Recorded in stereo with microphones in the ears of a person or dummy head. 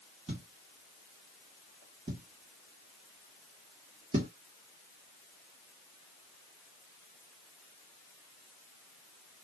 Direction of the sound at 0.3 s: 35° right (ahead or behind).